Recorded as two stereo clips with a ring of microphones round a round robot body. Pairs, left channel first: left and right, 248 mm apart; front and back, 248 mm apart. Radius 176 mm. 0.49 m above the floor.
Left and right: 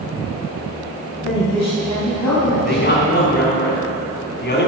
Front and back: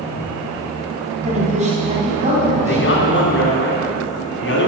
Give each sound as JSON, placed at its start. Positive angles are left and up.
{"t": 1.2, "sound": "a woman speaking", "azimuth_deg": 120, "distance_m": 3.5}
{"t": 2.6, "sound": "a man speaking", "azimuth_deg": 40, "distance_m": 3.5}